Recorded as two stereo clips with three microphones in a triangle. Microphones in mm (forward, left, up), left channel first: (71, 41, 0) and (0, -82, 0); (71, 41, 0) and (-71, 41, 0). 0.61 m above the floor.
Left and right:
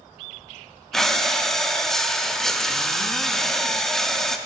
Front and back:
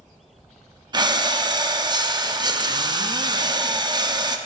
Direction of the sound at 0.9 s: 145° left.